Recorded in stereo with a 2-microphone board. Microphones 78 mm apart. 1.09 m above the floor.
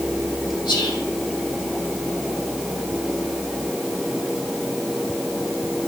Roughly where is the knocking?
I don't hear knocking.